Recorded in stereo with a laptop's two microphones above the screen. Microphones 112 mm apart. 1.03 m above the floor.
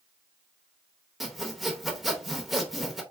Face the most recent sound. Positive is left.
turn(degrees=0)  # may be behind; listen again after turning